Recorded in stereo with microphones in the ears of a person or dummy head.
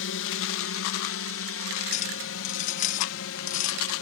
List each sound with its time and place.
0.0 s a drone: 65° left (ahead or behind); by 4.0 s 70° left (ahead or behind)
1.9 s a clink: 45° left (ahead or behind)